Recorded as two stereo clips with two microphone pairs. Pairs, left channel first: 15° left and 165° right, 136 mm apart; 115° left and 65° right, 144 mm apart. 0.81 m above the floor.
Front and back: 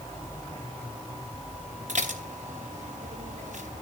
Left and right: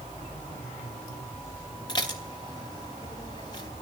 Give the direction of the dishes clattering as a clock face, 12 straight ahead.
6 o'clock.